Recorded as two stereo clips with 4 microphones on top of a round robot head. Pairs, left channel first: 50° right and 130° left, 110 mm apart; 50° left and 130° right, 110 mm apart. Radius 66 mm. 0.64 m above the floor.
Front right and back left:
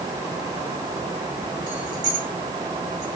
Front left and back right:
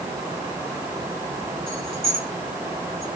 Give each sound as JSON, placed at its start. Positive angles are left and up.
{"t": 1.7, "sound": "keys jangling", "azimuth_deg": -175, "distance_m": 4.0}